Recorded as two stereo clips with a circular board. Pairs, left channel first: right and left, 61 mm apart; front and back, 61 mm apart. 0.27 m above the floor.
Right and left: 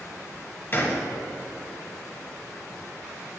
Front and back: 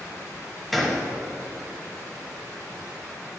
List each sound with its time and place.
0.7 s a gunshot: 95° right, 1.0 m